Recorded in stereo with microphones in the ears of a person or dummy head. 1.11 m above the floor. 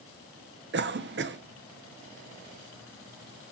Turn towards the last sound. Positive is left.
turn(degrees=-45)  # may be behind; listen again after turning